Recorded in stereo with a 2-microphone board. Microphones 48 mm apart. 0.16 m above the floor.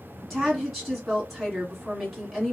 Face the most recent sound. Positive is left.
turn(degrees=0)  # may be behind; listen again after turning